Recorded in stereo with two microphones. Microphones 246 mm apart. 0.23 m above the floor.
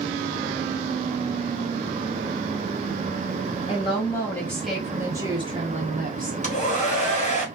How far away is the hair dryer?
About 1.3 m.